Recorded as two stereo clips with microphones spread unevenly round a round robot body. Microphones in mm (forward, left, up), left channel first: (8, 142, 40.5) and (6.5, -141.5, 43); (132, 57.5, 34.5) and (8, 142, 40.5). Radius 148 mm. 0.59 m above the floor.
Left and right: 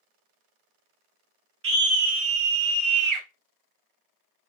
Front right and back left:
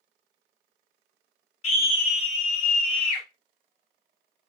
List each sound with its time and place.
1.6 s a scream: 60° right, 1.1 m; by 3.2 s 85° right, 1.7 m